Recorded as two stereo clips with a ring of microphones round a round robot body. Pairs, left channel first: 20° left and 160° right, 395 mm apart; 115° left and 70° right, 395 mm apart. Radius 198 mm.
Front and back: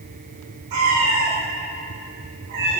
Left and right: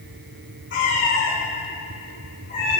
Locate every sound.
0.7 s a cat meowing: 175° left, 5.5 m; by 2.8 s 175° right, 6 m